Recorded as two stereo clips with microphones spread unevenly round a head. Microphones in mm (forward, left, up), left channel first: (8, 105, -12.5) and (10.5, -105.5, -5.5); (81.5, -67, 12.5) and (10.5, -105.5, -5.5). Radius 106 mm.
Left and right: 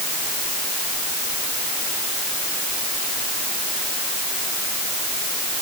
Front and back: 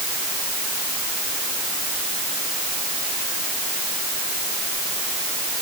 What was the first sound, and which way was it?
Only background noise.